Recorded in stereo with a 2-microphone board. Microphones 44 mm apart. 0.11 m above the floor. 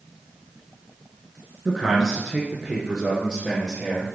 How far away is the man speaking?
About 1.1 m.